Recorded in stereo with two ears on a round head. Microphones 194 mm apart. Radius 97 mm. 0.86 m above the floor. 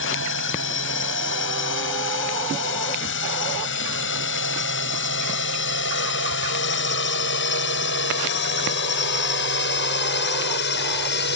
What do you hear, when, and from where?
0.0 s a drone: 65° left (ahead or behind); by 11.4 s 55° left (ahead or behind)